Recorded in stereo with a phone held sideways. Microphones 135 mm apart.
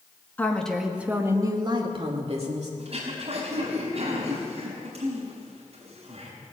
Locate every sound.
0.4 s a woman speaking: 15° left (ahead or behind), 1.7 m; by 2.7 s 55° right (ahead or behind), 2.5 m
2.8 s throat clearing: 50° right (ahead or behind), 4.5 m